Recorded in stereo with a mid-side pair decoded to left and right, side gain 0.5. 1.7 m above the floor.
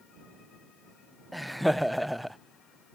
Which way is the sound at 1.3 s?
Straight ahead.